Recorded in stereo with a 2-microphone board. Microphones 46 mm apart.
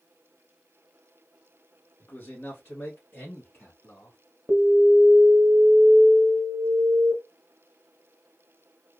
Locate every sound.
2.0 s a man speaking: 45° left (ahead or behind), 1.7 m; by 4.2 s 65° left (ahead or behind), 3 m
4.5 s an alarm: 15° right (ahead or behind), 1.2 m